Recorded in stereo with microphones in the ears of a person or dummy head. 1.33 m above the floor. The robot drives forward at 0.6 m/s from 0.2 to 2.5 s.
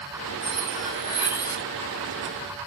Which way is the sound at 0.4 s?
35° left (ahead or behind).